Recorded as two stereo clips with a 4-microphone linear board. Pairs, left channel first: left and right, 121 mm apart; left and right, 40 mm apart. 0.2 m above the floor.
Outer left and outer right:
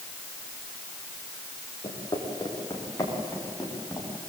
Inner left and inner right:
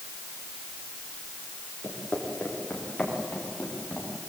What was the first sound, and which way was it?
Footsteps, 35° left (ahead or behind).